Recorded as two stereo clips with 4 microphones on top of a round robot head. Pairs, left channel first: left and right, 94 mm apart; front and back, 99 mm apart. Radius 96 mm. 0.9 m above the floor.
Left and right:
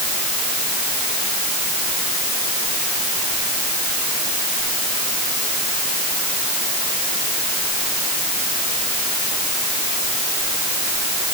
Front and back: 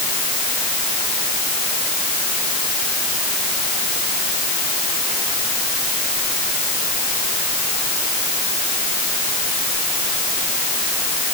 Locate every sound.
Only background noise.